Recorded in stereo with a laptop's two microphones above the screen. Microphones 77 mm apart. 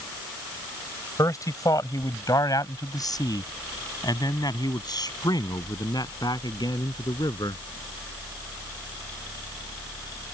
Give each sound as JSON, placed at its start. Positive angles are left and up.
{"t": 1.2, "sound": "a man speaking", "side_deg": 45}